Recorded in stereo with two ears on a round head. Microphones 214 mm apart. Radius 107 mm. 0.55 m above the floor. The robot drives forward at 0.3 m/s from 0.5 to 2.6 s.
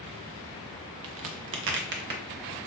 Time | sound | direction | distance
1.0 | a crack | 65° right (ahead or behind) | 0.6 m